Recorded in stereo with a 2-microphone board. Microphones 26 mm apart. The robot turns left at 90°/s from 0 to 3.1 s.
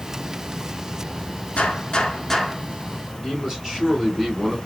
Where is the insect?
60° right, 1.3 m; by 4.7 s 20° left, 1.3 m.